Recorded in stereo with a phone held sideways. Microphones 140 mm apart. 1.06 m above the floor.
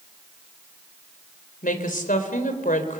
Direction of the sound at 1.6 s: 75° left (ahead or behind).